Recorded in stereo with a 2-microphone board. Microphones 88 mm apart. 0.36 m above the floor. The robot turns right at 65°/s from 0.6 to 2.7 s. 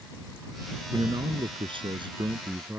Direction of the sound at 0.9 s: 140° right.